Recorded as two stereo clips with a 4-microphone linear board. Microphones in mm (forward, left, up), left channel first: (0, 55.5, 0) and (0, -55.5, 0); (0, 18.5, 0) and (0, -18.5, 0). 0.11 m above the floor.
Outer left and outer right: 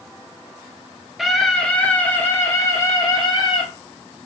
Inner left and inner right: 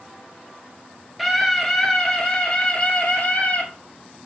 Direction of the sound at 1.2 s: Centre (ahead or behind).